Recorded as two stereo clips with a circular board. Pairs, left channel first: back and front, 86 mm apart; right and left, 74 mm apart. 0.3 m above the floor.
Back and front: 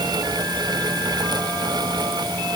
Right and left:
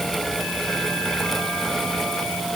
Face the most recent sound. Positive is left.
No sound to turn to.